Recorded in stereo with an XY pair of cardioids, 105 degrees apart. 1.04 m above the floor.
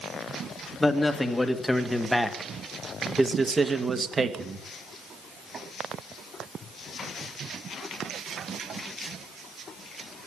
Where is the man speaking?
20° left, 2 m; by 4.6 s 45° right, 1.5 m.